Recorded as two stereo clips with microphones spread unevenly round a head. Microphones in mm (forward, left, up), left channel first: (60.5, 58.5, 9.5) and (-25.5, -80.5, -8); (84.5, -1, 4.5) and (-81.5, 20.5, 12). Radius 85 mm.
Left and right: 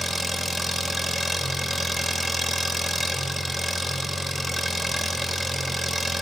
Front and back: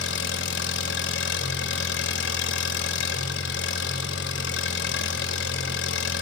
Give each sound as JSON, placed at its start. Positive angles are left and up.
{"t": 0.0, "sound": "an engine running", "azimuth_deg": -30, "distance_m": 3.0}